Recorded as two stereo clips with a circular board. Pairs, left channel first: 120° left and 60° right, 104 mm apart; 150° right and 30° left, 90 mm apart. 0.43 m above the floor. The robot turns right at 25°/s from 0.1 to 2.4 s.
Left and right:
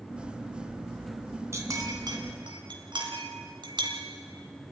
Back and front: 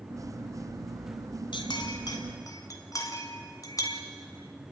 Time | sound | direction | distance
1.5 | a clink | 125° right | 2 m